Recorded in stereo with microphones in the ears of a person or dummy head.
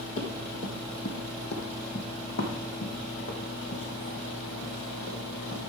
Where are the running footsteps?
40° left (ahead or behind), 1.8 m; by 5.6 s 70° left (ahead or behind), 4 m.